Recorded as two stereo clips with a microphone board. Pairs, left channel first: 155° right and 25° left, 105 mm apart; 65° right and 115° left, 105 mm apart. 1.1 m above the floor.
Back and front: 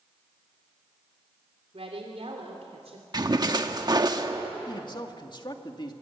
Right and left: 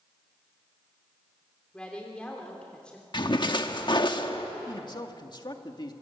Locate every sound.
1.7 s a woman speaking: 15° left, 3 m
3.1 s a splash: 25° right, 1.3 m
4.7 s a man speaking: 115° right, 2.0 m